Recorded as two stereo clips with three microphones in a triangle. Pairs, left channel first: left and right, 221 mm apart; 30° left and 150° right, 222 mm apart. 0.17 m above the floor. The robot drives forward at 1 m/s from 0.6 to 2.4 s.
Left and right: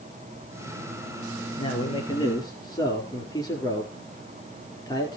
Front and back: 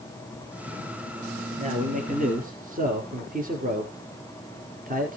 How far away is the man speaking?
About 3.5 m.